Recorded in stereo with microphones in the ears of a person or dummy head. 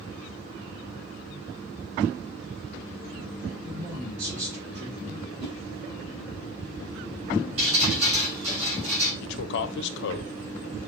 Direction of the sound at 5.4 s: 55° right (ahead or behind).